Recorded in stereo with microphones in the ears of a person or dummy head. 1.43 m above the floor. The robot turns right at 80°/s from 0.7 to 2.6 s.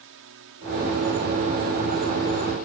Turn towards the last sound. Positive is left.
turn(degrees=50)